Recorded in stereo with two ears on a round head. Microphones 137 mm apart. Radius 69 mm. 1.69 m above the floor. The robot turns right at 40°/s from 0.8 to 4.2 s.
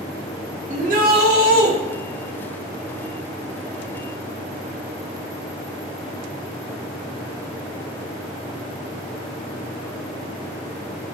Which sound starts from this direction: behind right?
A shout, at 0.7 s.